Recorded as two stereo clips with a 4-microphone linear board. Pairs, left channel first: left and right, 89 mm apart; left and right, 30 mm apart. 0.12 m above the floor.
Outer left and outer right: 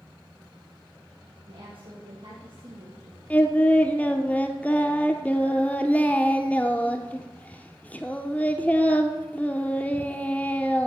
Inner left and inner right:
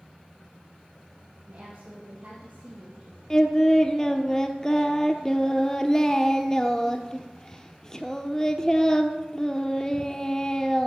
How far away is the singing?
About 0.9 m.